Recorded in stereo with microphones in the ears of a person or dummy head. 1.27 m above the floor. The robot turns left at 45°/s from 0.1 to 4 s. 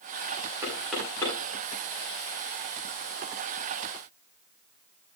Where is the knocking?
15° right (ahead or behind), 9 m; by 1.4 s 20° left (ahead or behind), 9 m.